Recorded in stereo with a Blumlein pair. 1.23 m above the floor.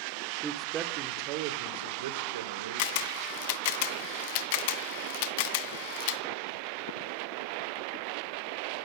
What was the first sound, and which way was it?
A man speaking, 15° right.